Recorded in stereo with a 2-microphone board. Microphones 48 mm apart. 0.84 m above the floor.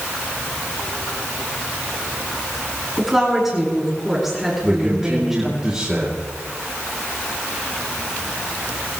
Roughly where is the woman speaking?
Centre.